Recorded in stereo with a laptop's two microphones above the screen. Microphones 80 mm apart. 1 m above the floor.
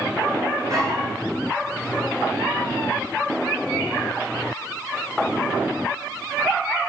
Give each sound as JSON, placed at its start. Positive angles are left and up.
{"t": 0.7, "sound": "a dog barking", "side_deg": -60, "distance_m": 6.5}